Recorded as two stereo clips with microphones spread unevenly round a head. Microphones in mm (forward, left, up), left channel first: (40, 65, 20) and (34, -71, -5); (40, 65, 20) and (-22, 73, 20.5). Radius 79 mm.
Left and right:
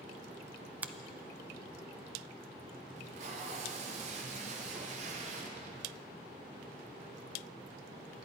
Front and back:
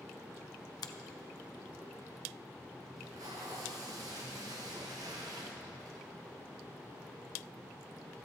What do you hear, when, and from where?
0.8 s a finger snap: 15° right, 0.7 m
3.0 s tape being pulled: 140° right, 1.3 m